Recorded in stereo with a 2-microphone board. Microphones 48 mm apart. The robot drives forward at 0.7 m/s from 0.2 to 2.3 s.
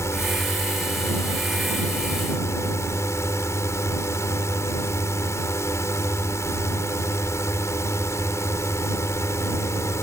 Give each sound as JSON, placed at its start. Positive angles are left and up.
{"t": 0.0, "sound": "a drone", "side_deg": 70}